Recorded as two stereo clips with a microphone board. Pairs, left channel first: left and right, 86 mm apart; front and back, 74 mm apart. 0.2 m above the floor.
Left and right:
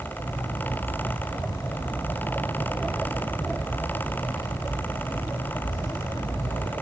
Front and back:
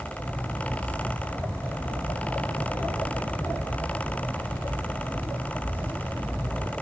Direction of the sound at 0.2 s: 60° left.